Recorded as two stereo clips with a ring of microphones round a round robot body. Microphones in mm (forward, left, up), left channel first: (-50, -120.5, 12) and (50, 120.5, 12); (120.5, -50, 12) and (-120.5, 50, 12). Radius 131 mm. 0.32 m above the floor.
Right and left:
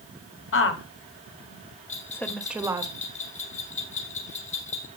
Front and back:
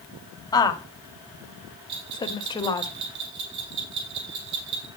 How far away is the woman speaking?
About 2 m.